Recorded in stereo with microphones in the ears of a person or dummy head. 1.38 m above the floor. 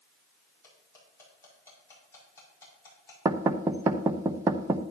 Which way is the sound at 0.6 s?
15° left (ahead or behind).